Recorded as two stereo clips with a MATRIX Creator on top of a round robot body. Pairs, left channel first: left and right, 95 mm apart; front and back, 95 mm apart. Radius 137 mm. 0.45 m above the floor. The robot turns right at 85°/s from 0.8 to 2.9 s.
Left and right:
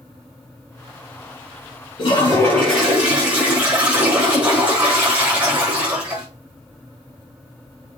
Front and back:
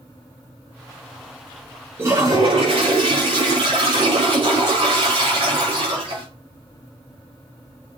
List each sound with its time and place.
2.0 s a toilet flushing: 115° left, 6.5 m; by 6.3 s 170° right, 6.5 m